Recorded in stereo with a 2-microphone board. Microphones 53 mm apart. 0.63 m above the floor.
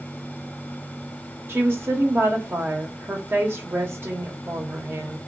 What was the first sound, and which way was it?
A woman speaking, 45° right (ahead or behind).